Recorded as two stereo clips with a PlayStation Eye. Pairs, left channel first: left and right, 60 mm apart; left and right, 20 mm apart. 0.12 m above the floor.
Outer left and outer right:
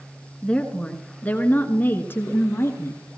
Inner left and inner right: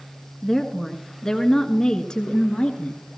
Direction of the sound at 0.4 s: 15° left (ahead or behind).